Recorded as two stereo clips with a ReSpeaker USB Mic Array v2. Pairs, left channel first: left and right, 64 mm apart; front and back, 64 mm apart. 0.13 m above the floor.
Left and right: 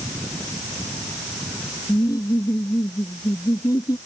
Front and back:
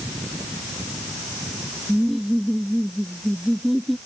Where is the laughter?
90° left.